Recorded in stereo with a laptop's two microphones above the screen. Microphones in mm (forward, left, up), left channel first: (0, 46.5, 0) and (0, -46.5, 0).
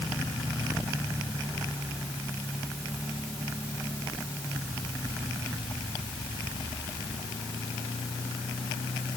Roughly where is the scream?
I don't hear a scream.